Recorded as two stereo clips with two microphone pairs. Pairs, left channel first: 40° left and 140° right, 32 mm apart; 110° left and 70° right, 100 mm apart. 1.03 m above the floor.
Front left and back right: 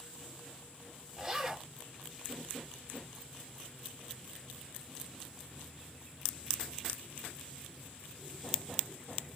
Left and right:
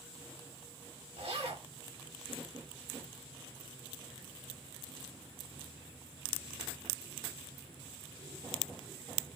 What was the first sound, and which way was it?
A zipper, 75° right.